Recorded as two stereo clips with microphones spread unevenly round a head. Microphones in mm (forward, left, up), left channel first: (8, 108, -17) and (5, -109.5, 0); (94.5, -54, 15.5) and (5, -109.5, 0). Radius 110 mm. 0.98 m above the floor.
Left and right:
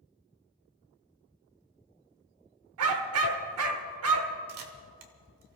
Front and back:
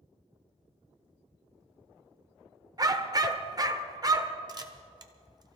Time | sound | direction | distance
2.8 | a dog barking | 95° right | 1.3 m
4.5 | a camera shutter | 95° right | 1.7 m